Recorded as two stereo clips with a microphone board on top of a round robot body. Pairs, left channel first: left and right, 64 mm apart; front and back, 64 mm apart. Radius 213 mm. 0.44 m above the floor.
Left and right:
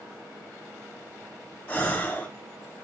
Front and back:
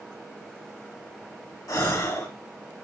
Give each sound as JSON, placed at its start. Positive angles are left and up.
{"t": 1.7, "sound": "a gasp", "azimuth_deg": 25, "distance_m": 2.5}